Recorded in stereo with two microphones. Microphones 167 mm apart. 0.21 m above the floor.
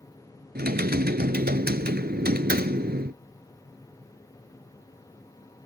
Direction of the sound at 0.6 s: 70° right (ahead or behind).